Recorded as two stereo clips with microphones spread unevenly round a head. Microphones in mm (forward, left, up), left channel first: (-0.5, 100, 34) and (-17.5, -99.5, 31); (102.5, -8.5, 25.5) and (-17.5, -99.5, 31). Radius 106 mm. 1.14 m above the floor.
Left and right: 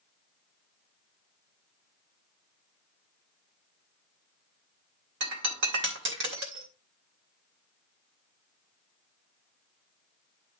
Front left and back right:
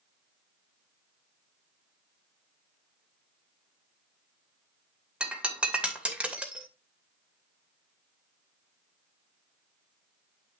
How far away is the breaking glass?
About 2.5 m.